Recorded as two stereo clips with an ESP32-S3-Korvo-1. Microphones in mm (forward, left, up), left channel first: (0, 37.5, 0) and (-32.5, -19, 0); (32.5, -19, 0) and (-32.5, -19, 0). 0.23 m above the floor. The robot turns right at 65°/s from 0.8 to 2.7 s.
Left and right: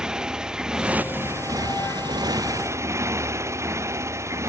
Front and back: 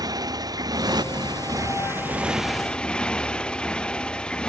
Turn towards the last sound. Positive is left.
turn(degrees=-75)